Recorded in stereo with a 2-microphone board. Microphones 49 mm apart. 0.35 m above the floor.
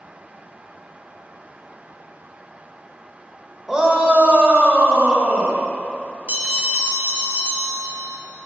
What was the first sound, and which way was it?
A shout, 10° right (ahead or behind).